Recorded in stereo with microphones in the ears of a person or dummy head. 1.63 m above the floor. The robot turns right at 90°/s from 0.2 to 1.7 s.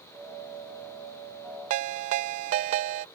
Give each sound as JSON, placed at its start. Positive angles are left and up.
{"t": 1.7, "sound": "a ringtone", "side_deg": -35}